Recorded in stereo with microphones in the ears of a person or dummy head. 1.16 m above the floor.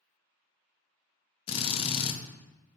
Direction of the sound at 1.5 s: 30° left (ahead or behind).